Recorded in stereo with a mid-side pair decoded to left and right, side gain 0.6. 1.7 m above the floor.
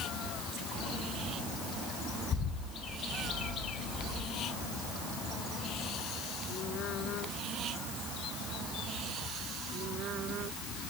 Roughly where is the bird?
Ahead left.